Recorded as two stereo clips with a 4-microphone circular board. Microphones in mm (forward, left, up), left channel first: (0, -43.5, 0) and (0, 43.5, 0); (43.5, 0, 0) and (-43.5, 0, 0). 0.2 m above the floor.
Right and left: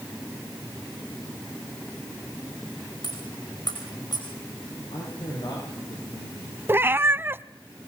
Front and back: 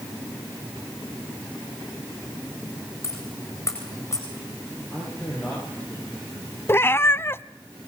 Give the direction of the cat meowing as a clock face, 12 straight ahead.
11 o'clock.